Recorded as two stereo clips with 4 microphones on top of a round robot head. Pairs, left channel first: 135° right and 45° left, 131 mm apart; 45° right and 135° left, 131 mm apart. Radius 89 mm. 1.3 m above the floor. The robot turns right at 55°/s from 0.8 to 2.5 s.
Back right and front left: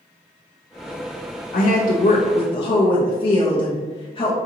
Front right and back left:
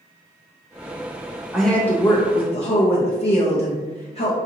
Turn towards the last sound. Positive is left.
turn(degrees=-85)